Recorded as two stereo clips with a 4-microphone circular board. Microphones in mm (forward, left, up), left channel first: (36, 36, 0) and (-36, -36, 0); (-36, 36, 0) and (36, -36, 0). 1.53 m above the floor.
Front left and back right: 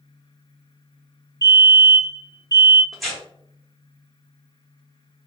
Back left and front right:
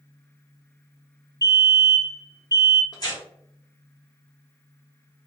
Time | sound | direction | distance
1.4 | a fire alarm | straight ahead | 1.1 m
2.9 | tearing paper | 135° left | 1.4 m